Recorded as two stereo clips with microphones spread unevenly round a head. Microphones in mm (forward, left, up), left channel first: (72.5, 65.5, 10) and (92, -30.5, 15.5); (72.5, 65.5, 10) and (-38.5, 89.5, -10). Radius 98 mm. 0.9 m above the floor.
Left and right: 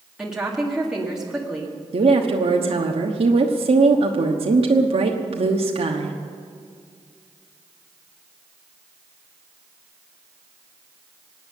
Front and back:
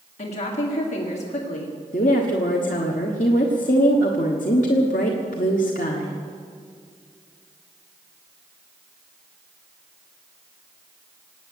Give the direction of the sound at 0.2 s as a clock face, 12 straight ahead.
12 o'clock.